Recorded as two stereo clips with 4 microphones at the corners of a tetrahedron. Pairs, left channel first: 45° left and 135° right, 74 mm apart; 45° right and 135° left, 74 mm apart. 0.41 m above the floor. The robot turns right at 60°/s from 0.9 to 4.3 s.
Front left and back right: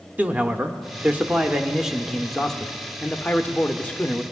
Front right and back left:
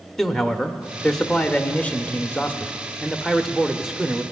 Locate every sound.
0.2 s a man speaking: 120° right, 0.8 m; by 4.2 s 80° left, 0.8 m